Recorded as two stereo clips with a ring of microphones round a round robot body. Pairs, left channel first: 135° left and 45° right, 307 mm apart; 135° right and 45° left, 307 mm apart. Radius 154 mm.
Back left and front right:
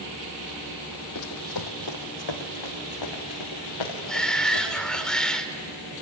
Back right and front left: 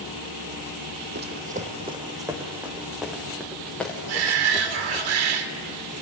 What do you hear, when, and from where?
1.1 s running footsteps: 100° left, 2 m; by 5.0 s 145° left, 6.5 m
4.1 s a shout: 45° left, 2 m